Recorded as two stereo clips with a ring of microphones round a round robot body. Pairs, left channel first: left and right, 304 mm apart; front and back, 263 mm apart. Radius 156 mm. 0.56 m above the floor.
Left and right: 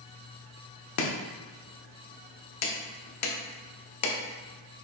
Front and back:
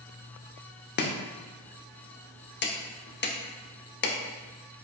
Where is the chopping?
50° left, 0.7 m.